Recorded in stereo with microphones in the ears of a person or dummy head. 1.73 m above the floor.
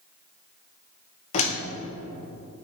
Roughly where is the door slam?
Left.